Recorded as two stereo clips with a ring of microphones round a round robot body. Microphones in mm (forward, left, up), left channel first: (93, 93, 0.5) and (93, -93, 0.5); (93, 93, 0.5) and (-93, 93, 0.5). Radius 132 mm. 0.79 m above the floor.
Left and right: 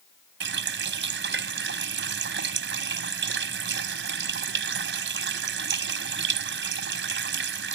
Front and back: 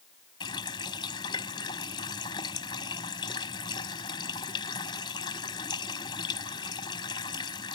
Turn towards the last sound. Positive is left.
turn(degrees=-75)